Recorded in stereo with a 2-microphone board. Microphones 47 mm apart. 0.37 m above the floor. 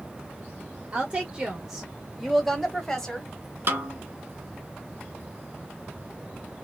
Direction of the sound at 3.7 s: 50° right (ahead or behind).